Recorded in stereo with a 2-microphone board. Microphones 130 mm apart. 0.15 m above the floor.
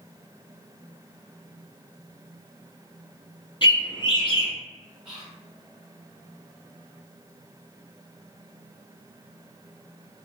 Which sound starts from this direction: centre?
Whispering, at 5.0 s.